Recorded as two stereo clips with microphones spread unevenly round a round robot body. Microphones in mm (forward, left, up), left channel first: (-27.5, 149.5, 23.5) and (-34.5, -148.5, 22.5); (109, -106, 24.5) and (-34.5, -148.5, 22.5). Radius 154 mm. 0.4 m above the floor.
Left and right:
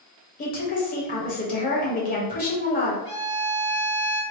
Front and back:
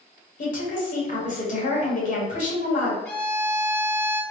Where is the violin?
60° right, 1.6 m.